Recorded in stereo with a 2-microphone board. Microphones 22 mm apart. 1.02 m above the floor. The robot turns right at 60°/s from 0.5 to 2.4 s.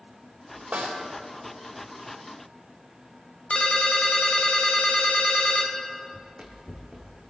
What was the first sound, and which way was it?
A snare drum, 90° right.